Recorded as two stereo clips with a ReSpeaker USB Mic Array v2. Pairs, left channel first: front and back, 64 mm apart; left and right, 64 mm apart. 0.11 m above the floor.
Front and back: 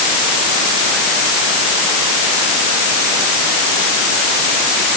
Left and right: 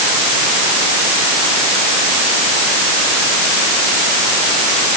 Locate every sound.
Only background noise.